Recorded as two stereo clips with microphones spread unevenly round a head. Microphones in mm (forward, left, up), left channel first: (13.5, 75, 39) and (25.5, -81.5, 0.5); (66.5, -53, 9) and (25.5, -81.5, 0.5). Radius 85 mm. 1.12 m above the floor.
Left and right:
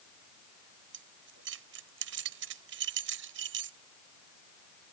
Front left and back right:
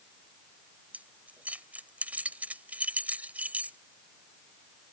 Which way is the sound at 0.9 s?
85° right.